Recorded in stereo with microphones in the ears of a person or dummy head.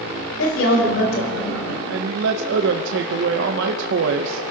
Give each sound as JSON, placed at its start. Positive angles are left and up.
{"t": 0.4, "sound": "a woman speaking", "side_deg": 70, "distance_m": 4.0}
{"t": 1.9, "sound": "a man speaking", "side_deg": -70, "distance_m": 0.7}